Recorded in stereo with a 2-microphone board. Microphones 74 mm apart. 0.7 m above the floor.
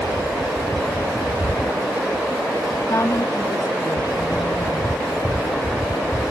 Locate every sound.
2.9 s a woman speaking: 45° left (ahead or behind), 1.5 m; by 6.0 s 65° left (ahead or behind), 5.5 m